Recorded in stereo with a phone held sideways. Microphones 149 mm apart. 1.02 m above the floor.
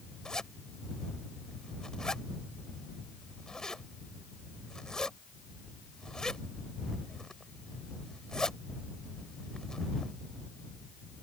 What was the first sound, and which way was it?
A zipper, 5° left (ahead or behind).